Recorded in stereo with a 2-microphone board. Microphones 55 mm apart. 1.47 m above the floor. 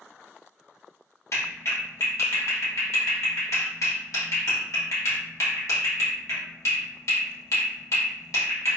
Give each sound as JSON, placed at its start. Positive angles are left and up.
{"t": 1.3, "sound": "a clap", "side_deg": 65, "distance_m": 1.2}